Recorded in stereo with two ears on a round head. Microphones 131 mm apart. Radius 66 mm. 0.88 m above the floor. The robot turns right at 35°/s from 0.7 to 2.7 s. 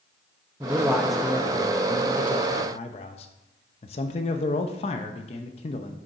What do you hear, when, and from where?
0.6 s a man speaking: 15° right, 0.6 m; by 6.0 s 55° left, 0.6 m